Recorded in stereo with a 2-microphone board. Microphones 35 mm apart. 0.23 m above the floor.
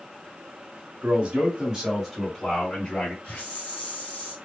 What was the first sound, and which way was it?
A man speaking, 45° right (ahead or behind).